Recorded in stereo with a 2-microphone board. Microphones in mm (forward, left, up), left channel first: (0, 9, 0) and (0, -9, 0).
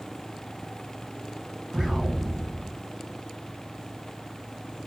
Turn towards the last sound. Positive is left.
turn(degrees=-15)  # may be behind; listen again after turning